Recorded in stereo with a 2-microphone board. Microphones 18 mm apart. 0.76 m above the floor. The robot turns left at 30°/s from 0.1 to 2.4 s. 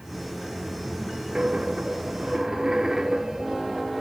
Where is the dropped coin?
105° right, 1.1 m; by 4.0 s 135° right, 1.1 m.